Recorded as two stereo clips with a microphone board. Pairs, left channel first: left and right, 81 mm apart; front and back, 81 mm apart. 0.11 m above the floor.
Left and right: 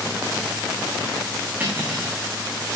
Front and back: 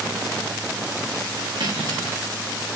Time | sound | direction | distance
1.6 | cutlery clinking | 155° right | 5.5 m